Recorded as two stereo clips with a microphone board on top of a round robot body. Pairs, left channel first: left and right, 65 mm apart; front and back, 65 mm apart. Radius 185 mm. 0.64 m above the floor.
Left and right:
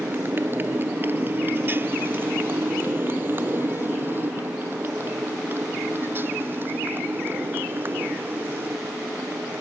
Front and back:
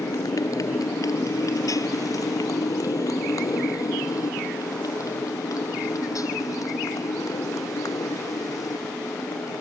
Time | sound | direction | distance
0.0 | a motorcycle | 30° right | ?